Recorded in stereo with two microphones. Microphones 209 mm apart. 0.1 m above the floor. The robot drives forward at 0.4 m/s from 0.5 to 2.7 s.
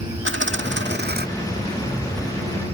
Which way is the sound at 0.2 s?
70° right (ahead or behind).